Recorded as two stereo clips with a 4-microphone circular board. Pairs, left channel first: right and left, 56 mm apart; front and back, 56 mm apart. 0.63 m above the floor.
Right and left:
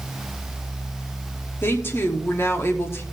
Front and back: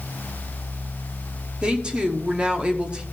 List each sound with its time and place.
1.6 s a woman speaking: 115° right, 1.0 m